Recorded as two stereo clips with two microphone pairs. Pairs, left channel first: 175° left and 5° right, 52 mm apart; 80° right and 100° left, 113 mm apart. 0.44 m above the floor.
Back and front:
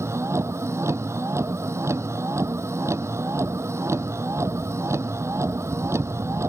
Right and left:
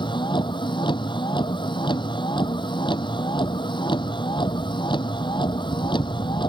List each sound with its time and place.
0.0 s a vehicle: 35° right